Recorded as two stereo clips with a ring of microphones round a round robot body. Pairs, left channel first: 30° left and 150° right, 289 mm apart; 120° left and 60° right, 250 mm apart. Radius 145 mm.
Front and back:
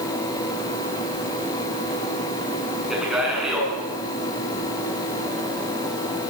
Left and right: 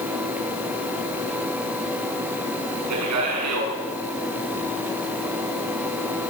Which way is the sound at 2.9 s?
60° right.